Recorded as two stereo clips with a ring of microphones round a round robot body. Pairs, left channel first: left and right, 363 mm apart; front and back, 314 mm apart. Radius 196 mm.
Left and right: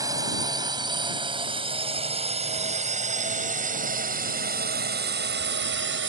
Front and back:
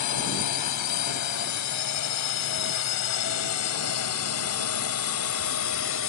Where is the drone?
10° right; by 6.1 s 40° right.